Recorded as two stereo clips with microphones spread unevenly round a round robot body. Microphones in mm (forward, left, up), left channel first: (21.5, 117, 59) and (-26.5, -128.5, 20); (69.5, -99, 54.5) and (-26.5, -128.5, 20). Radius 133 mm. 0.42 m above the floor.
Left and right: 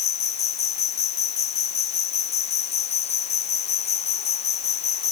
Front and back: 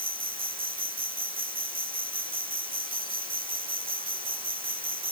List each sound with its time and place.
0.0 s an insect: 145° left